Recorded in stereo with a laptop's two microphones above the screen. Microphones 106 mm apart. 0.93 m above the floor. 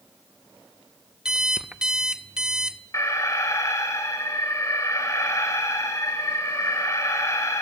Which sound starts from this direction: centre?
An alarm clock, at 1.2 s.